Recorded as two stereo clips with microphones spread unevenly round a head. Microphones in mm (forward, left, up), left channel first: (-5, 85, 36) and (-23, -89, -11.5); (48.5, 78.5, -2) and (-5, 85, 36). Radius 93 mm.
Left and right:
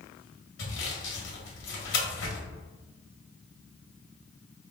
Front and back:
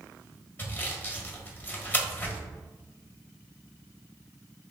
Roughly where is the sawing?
Ahead left.